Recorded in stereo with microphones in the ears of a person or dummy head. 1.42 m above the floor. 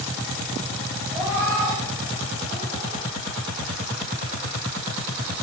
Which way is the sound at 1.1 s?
20° right (ahead or behind).